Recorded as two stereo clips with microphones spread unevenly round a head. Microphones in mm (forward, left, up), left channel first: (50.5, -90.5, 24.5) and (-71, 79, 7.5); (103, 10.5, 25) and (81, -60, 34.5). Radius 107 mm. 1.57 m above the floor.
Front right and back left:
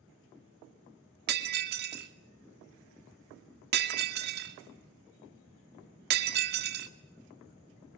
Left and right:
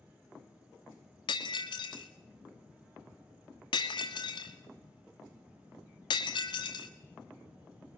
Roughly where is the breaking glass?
Left.